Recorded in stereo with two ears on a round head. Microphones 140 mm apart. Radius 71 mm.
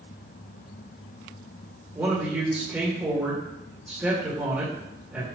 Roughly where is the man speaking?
Centre.